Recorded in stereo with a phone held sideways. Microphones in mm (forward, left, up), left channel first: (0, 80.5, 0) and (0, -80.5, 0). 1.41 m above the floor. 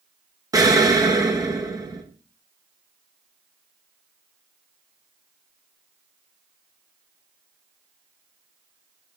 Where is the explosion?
20° right (ahead or behind), 0.6 m.